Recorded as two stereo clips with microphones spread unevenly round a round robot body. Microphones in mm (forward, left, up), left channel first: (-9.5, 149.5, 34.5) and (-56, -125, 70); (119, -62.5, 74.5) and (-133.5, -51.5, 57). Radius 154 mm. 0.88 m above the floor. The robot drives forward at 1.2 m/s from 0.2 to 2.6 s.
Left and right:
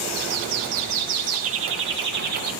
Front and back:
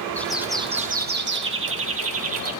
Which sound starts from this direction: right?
A bird, at 0.2 s.